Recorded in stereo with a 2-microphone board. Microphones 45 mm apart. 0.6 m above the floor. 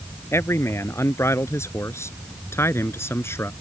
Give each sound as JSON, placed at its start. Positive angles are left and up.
{"t": 0.3, "sound": "a man speaking", "side_deg": 80}